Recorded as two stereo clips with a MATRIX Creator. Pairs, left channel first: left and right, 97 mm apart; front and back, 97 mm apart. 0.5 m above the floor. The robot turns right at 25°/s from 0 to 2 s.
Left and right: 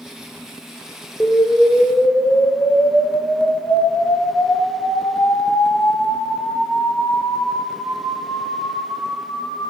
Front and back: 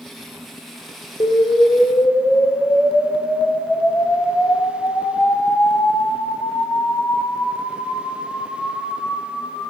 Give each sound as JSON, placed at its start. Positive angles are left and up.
{"t": 1.2, "sound": "an explosion", "azimuth_deg": 20, "distance_m": 1.5}